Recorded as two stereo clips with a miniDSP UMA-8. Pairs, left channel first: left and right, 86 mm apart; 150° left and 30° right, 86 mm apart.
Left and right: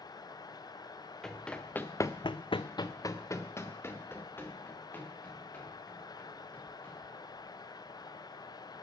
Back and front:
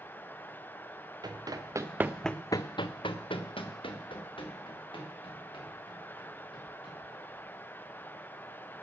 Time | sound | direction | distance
1.2 | running footsteps | 5° left | 1.7 m